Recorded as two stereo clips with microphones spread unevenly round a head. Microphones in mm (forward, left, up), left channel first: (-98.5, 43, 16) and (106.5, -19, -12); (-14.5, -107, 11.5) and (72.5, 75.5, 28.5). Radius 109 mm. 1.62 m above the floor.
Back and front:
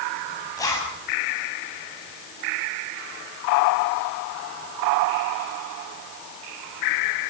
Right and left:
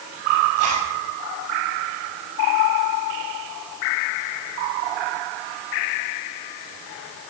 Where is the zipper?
90° left, 9.5 m.